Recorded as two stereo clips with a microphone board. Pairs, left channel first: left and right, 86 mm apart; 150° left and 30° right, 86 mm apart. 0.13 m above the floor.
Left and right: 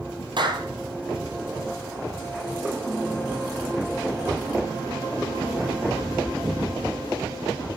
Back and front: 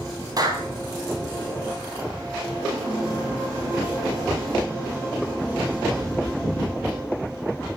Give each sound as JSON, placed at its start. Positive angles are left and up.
{"t": 0.4, "sound": "a clap", "azimuth_deg": -70, "distance_m": 3.5}